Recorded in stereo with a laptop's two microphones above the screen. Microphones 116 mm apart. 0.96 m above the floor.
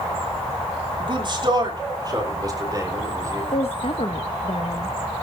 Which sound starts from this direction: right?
A man speaking, at 1.0 s.